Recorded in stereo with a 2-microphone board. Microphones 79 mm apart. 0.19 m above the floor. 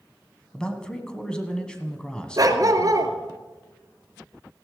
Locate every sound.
0.5 s a man speaking: 10° left (ahead or behind), 1.5 m
2.4 s a dog barking: 50° right (ahead or behind), 1.3 m